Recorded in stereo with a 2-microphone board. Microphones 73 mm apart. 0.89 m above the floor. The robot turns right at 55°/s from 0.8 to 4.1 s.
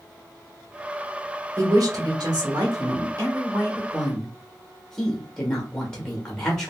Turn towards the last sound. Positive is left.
turn(degrees=10)